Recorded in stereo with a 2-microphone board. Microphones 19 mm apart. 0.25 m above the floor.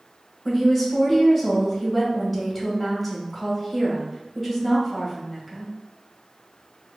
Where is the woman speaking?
Centre (ahead or behind), 1.0 m.